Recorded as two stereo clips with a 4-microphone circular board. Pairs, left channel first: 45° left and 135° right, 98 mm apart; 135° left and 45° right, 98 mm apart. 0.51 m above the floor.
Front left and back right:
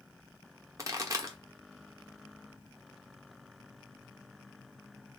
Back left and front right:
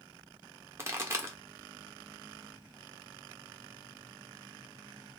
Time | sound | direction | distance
0.8 | a pop | 95° right | 1.0 m